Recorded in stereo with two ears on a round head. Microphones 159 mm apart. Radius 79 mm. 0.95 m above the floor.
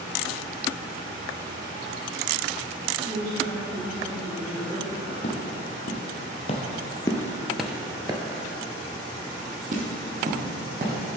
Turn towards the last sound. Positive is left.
turn(degrees=-50)  # may be behind; listen again after turning